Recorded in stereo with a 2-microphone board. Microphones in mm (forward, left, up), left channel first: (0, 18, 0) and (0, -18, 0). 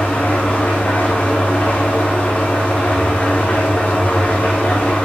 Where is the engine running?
45° left (ahead or behind), 3 m.